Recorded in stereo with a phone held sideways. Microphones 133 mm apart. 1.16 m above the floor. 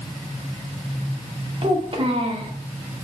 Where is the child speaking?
45° right (ahead or behind), 2 m.